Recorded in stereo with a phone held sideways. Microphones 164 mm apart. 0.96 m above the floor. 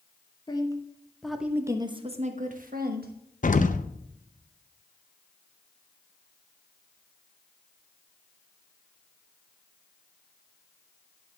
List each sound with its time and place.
0.5 s a woman speaking: 25° left (ahead or behind), 1.3 m; by 3.1 s 65° right (ahead or behind), 1.4 m
3.4 s an explosion: 50° left (ahead or behind), 0.6 m